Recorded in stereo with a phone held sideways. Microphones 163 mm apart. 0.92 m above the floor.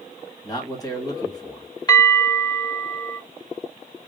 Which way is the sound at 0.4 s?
25° left (ahead or behind).